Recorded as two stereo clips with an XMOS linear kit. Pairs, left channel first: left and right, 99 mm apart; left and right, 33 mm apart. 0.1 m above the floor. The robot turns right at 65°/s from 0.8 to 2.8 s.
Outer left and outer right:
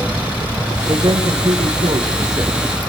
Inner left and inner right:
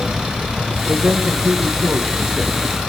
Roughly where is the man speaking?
Behind right.